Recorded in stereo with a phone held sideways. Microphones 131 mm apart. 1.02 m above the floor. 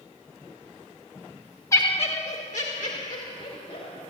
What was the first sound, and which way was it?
Laughter, 25° left (ahead or behind).